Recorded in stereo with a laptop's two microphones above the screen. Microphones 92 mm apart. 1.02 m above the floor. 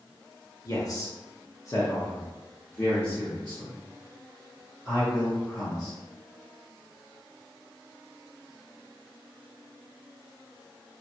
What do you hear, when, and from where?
0.7 s a man speaking: 40° left (ahead or behind), 0.8 m; by 5.9 s 10° left (ahead or behind), 3 m